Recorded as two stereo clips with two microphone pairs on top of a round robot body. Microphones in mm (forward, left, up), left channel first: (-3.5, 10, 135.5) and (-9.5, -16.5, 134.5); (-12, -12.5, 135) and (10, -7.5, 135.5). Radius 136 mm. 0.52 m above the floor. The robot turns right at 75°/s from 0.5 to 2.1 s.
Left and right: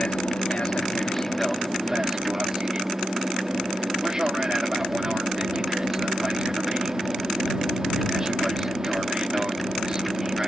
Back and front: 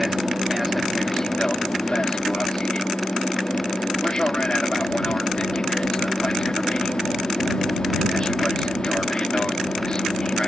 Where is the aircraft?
90° left; by 10.5 s 150° right.